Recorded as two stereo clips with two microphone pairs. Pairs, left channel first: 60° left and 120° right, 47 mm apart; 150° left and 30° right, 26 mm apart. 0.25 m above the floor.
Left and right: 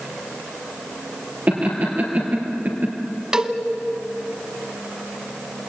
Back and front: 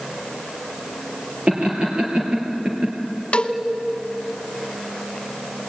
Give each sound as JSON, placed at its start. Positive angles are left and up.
{"t": 1.5, "sound": "laughter", "azimuth_deg": -70, "distance_m": 5.5}
{"t": 3.3, "sound": "a cowbell", "azimuth_deg": 170, "distance_m": 1.4}